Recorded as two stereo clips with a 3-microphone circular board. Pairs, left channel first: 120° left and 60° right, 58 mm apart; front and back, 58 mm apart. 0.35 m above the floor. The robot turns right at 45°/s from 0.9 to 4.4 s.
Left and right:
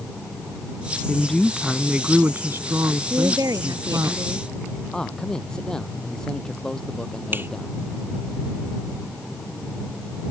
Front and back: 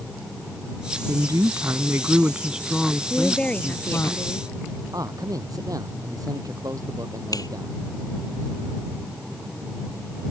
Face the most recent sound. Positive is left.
turn(degrees=-5)